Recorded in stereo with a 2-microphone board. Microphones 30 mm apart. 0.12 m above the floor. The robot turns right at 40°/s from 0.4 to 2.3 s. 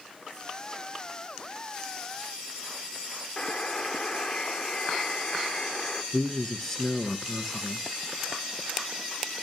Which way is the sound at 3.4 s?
20° left (ahead or behind).